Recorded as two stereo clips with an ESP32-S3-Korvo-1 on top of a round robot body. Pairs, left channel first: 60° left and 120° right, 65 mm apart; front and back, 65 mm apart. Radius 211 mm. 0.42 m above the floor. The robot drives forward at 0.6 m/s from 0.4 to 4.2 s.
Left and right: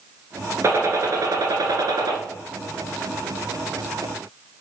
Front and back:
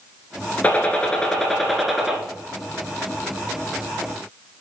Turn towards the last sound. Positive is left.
turn(degrees=-125)